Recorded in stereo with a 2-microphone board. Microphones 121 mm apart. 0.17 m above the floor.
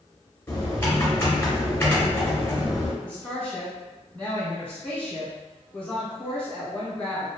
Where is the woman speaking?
10° left (ahead or behind), 1.4 m.